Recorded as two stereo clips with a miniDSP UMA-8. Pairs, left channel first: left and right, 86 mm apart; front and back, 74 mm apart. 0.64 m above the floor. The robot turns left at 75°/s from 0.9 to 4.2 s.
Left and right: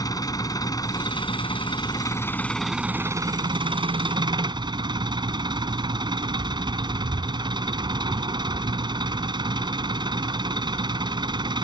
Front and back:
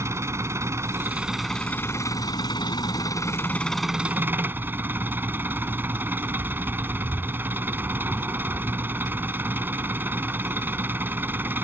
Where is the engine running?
130° left; by 11.7 s 115° right.